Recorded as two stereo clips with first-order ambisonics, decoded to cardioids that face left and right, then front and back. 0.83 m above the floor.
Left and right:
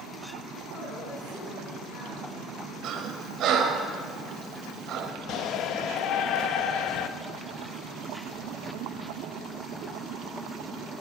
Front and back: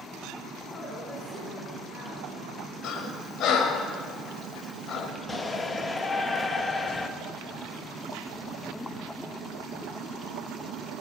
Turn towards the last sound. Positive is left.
turn(degrees=70)